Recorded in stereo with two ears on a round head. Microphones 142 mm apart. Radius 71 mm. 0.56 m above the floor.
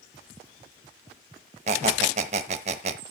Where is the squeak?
45° right (ahead or behind), 0.9 m.